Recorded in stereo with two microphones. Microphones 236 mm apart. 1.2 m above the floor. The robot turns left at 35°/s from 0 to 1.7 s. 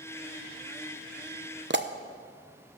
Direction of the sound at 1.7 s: 45° right (ahead or behind).